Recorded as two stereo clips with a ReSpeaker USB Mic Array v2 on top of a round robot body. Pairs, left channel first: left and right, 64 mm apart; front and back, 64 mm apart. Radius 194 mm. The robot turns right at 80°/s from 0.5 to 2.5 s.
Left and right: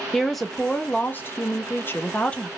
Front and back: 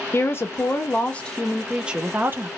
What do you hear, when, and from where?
0.1 s a woman speaking: 5° left, 0.8 m; by 2.5 s 165° left, 0.8 m